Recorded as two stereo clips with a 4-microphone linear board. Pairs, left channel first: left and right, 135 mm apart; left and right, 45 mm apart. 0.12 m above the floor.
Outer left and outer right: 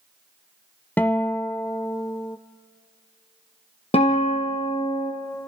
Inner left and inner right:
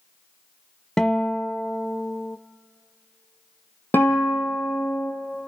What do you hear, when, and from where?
1.0 s a guitar: 15° left (ahead or behind), 0.5 m
3.9 s a guitar: 50° left (ahead or behind), 3 m